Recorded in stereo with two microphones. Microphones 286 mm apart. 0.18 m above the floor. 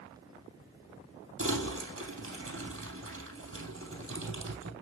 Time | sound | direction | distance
1.4 | crumpling | 50° right (ahead or behind) | 3 m